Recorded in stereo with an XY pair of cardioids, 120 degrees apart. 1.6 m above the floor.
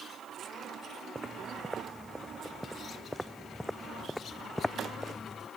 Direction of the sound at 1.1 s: 15° right.